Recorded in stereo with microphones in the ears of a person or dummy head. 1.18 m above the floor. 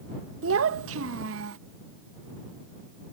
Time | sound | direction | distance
0.4 | a child speaking | 85° right | ?